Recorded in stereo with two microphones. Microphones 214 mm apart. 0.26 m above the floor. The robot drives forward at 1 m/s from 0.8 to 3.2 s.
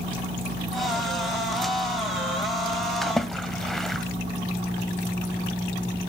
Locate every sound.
3.0 s a splash: centre (ahead or behind), 1.7 m